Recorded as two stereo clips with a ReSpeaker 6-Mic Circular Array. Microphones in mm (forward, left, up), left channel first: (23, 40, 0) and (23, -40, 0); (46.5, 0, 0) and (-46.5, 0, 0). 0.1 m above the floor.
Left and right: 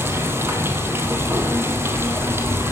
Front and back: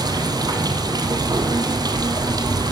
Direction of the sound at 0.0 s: 145° right.